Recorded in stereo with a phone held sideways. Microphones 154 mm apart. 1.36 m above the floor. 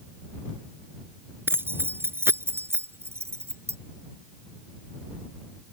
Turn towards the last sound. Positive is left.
turn(degrees=-15)  # may be behind; listen again after turning